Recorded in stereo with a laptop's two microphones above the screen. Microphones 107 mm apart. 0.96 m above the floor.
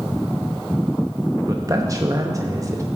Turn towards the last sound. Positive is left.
turn(degrees=-30)  # may be behind; listen again after turning